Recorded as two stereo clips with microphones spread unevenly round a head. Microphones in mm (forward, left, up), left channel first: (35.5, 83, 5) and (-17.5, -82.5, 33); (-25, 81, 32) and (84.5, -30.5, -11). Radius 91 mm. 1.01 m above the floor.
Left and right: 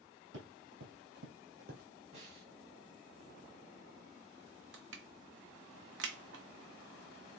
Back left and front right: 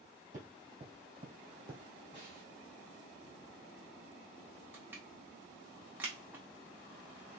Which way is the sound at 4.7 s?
130° right.